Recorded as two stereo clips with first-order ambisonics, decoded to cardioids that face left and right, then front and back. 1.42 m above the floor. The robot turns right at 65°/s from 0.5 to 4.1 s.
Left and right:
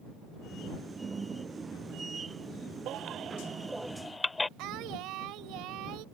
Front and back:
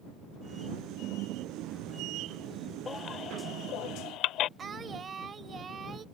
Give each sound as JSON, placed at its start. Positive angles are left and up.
{"t": 2.9, "sound": "a baby crying", "azimuth_deg": -70}
{"t": 4.6, "sound": "singing", "azimuth_deg": -115}